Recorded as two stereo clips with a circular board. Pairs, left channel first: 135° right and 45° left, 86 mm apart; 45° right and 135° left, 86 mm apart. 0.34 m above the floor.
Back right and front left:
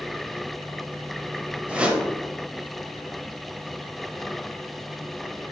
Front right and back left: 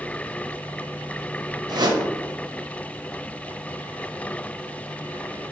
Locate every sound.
1.7 s a whoosh: 120° left, 0.5 m